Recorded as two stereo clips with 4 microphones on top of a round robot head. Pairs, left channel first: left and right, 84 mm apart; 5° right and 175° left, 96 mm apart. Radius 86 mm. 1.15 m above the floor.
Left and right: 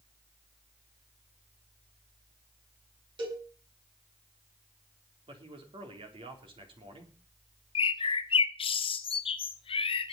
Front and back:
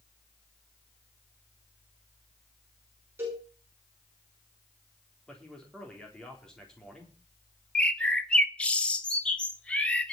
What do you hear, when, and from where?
3.2 s a cowbell: 110° right, 8 m
5.3 s a man speaking: 85° right, 4 m
7.8 s a bird: 75° left, 1.4 m